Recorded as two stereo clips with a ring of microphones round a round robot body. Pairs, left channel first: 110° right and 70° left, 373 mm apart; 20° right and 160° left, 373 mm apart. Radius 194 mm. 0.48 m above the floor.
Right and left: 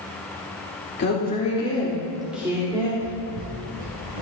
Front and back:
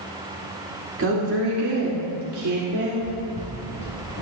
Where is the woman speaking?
160° right, 1.8 m; by 2.9 s 140° left, 2.0 m.